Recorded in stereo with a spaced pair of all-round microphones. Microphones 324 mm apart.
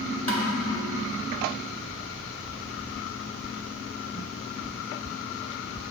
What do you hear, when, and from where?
0.3 s tapping: 40° right (ahead or behind), 1.1 m